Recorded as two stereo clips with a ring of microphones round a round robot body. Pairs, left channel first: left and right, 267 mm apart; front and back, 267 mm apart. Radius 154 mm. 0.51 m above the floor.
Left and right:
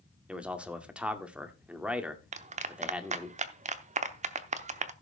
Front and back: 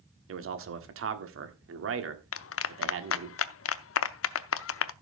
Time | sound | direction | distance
0.3 | a man speaking | 175° right | 1.6 m
2.3 | a clap | 30° right | 0.7 m